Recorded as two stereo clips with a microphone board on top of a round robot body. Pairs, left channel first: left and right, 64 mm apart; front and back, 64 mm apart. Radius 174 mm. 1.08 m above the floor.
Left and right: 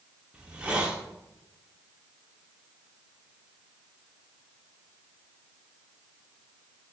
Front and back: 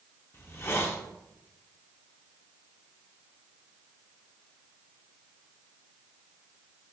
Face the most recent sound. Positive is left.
turn(degrees=-25)